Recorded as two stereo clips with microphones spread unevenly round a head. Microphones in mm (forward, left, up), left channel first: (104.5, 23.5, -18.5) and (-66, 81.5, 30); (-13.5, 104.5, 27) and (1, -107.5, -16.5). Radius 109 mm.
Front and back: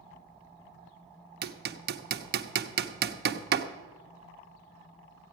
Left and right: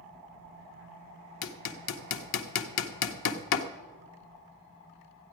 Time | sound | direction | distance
1.4 | hammering | 125° left | 0.8 m